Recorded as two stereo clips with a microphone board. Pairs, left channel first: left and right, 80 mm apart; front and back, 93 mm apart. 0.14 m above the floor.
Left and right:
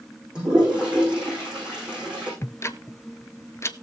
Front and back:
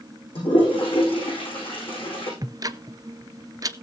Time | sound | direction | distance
0.3 | a toilet flushing | 10° right | 10 m
2.4 | ticking | 140° left | 0.6 m